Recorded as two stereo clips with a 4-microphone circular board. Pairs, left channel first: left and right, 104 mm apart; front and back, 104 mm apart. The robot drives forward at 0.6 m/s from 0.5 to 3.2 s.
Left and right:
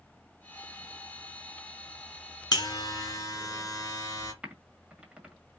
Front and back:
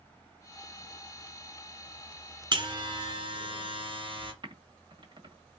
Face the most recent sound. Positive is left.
turn(degrees=-165)